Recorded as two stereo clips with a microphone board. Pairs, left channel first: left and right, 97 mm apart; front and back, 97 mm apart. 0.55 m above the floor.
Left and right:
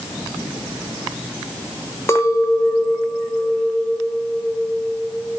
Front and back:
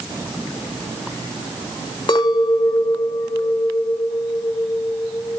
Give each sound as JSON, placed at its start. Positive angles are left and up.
{"t": 2.1, "sound": "a clink", "azimuth_deg": 35, "distance_m": 1.3}